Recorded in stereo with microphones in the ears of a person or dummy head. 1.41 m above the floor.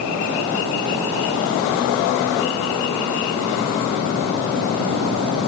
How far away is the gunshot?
I don't hear a gunshot.